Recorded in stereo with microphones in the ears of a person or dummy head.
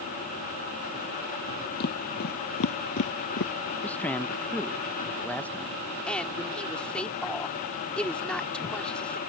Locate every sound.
1.8 s footsteps: 55° left (ahead or behind); by 3.5 s 50° left (ahead or behind)
3.8 s a man speaking: 10° left (ahead or behind)
6.1 s a woman speaking: 5° left (ahead or behind)